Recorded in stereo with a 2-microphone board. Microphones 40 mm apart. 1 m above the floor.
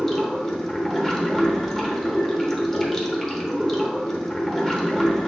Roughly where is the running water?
Centre.